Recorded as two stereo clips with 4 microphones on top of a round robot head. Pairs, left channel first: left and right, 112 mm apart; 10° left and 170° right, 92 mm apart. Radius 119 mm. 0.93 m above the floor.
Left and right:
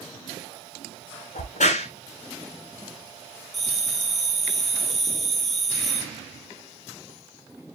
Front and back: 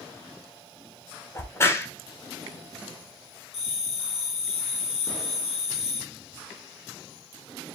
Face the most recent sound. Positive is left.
turn(degrees=0)